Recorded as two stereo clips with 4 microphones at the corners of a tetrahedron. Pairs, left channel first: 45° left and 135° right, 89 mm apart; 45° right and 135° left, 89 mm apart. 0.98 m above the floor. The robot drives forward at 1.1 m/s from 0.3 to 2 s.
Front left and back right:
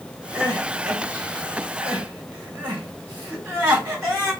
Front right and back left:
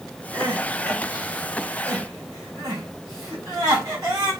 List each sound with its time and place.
0.3 s crying: 165° left, 1.5 m; by 4.3 s 175° left, 3.5 m